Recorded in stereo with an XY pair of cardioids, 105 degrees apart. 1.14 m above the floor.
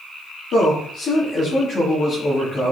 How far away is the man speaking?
About 2.5 m.